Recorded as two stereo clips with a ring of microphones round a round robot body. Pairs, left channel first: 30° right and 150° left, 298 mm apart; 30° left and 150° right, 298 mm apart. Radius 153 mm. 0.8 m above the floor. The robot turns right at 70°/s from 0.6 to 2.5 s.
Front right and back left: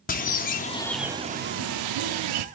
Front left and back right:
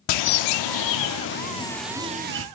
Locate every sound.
0.1 s a bird: 35° left, 0.6 m; by 2.5 s 165° left, 0.6 m